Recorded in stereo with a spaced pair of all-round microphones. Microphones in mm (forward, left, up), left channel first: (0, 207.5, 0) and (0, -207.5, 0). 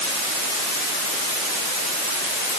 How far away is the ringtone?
No ringtone in this recording.